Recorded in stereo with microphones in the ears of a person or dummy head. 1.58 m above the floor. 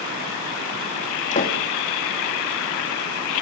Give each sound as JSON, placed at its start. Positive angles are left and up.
{"t": 1.3, "sound": "a door slam", "side_deg": 35, "distance_m": 2.0}